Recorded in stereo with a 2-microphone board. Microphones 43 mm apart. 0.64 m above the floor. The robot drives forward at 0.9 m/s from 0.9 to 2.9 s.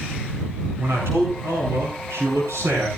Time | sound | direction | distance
0.8 | a man speaking | 80° right | 9 m